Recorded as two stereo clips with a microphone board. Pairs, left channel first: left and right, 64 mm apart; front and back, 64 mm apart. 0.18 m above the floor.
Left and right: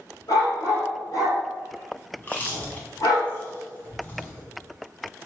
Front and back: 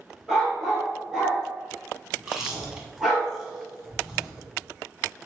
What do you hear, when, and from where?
0.3 s a dog barking: 90° left, 1.6 m
2.2 s chewing: 105° left, 1.0 m